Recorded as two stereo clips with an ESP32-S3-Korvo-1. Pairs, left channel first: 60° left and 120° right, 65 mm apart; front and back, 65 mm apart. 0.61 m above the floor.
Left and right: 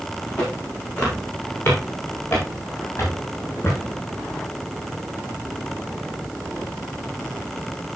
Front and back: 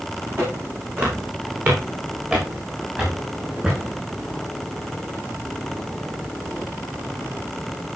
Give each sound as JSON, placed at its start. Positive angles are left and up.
{"t": 0.4, "sound": "footsteps", "azimuth_deg": 125, "distance_m": 8.5}